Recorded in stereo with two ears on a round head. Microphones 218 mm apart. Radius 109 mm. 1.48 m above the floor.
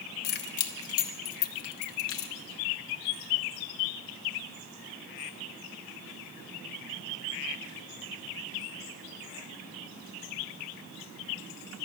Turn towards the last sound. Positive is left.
turn(degrees=55)  # may be behind; listen again after turning